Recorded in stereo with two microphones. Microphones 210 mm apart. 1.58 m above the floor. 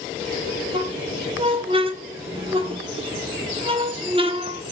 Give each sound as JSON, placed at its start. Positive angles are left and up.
{"t": 0.7, "sound": "a squeak", "side_deg": -25, "distance_m": 0.8}